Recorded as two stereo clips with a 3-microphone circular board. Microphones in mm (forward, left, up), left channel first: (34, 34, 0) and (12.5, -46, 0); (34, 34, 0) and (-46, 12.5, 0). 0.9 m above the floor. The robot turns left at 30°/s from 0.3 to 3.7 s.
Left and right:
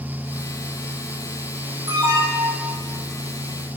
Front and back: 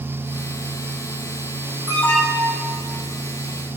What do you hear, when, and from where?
1.9 s an alarm: 130° right, 8 m; by 2.7 s 155° right, 8 m